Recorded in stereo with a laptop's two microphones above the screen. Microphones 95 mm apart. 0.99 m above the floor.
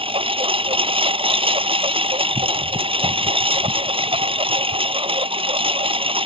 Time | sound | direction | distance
0.0 | a lawn mower | 75° right (ahead or behind) | ?